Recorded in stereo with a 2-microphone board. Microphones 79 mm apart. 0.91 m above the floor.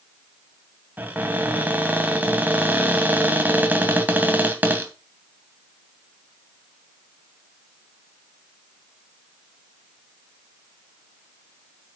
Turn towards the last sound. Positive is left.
turn(degrees=-20)  # may be behind; listen again after turning